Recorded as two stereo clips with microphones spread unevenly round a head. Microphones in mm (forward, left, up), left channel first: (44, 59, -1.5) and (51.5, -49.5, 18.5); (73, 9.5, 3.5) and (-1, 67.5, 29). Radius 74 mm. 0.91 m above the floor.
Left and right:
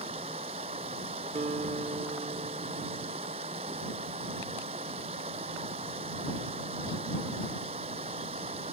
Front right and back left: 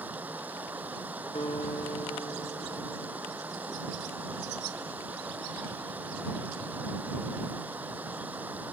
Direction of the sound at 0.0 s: 140° right.